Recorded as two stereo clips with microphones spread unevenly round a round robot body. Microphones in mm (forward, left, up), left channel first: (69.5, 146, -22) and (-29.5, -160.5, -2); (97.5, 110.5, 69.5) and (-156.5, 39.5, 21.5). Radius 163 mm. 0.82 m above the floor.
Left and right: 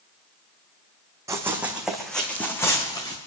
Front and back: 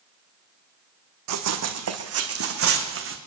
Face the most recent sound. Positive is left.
turn(degrees=150)